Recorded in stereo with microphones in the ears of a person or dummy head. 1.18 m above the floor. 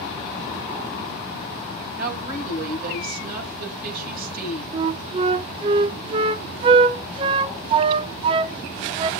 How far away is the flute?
About 0.6 m.